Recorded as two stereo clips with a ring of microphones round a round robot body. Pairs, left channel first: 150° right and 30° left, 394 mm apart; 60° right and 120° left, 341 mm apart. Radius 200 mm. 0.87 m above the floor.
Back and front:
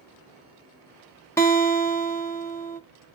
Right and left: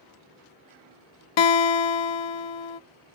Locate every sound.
1.4 s a guitar: 65° right, 0.8 m